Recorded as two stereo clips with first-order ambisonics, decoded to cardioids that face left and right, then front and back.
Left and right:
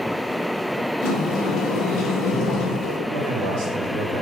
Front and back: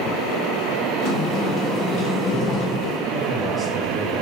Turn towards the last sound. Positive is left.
turn(degrees=-85)